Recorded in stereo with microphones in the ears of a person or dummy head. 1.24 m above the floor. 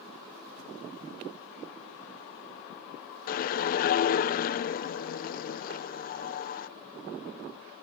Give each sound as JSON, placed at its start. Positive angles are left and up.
{"t": 3.3, "sound": "a whoosh", "side_deg": 40, "distance_m": 0.6}